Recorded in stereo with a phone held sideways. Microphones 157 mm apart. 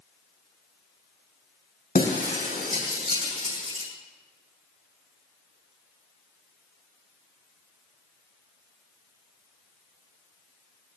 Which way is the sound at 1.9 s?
65° left (ahead or behind).